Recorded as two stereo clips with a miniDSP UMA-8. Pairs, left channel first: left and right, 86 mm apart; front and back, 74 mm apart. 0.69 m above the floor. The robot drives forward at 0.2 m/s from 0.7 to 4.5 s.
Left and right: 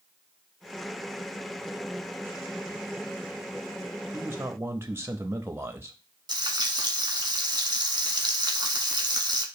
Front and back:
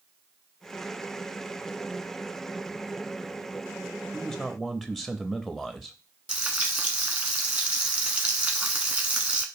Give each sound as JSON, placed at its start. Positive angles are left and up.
{"t": 4.1, "sound": "a man speaking", "azimuth_deg": -75, "distance_m": 0.5}
{"t": 6.3, "sound": "frying", "azimuth_deg": -115, "distance_m": 0.8}